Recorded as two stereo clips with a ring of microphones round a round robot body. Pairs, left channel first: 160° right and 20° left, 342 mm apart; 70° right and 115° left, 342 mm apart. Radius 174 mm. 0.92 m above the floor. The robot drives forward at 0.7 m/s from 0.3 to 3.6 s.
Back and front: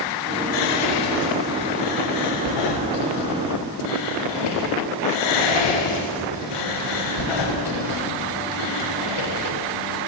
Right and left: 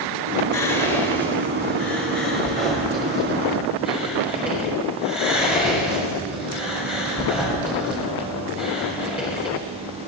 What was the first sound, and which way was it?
Whispering, 115° right.